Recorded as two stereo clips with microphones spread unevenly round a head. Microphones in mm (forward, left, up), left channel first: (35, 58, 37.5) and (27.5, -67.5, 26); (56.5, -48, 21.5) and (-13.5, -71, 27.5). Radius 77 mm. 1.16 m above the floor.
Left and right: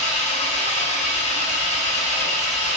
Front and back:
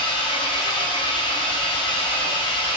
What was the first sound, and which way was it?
An engine running, 55° left.